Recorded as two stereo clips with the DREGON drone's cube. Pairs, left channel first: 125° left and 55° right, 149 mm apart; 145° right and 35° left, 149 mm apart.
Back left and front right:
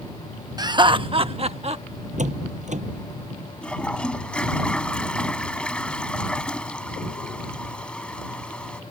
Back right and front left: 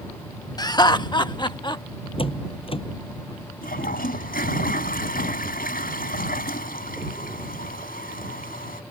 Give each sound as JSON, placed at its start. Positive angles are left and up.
{"t": 0.6, "sound": "laughter", "azimuth_deg": -100}
{"t": 2.2, "sound": "a door slam", "azimuth_deg": -95}
{"t": 3.6, "sound": "a toilet flushing", "azimuth_deg": -155}